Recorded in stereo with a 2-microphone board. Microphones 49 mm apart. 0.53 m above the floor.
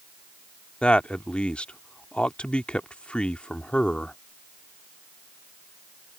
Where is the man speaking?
25° left (ahead or behind).